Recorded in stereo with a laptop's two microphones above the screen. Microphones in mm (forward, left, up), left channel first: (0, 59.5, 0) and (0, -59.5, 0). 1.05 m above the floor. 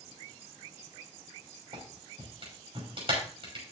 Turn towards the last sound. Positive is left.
turn(degrees=-50)  # may be behind; listen again after turning